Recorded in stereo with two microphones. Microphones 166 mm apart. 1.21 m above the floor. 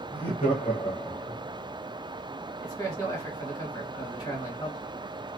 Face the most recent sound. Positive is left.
turn(degrees=20)  # may be behind; listen again after turning